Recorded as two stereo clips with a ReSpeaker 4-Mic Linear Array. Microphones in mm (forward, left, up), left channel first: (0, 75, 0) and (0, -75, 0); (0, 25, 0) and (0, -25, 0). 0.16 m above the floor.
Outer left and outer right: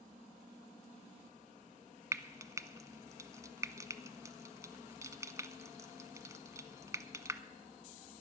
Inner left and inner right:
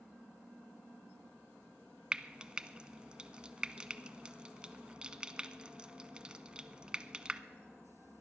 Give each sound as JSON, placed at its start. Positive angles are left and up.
{"t": 2.1, "sound": "frying", "side_deg": -20, "distance_m": 0.5}